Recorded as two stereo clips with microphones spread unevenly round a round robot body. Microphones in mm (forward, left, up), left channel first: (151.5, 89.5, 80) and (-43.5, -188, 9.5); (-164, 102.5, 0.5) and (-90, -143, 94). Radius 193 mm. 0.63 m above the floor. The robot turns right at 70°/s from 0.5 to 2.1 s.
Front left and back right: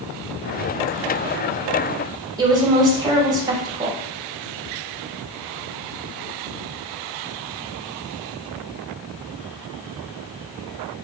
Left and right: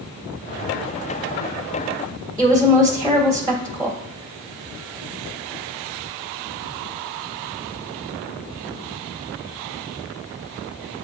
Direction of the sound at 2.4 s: 175° right.